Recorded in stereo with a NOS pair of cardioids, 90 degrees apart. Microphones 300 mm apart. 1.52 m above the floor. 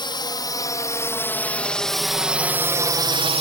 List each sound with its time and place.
0.0 s a drone: 15° left; by 3.4 s 25° right